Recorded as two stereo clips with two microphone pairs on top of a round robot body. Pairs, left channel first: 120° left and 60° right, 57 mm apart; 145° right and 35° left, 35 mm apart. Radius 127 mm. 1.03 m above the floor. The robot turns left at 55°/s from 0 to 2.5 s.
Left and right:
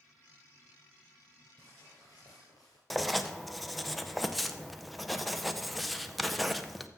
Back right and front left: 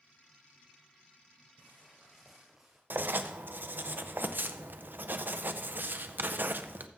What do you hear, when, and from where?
1.6 s footsteps: 175° left, 1.7 m; by 2.8 s 100° left, 1.4 m
2.9 s writing: 30° left, 0.7 m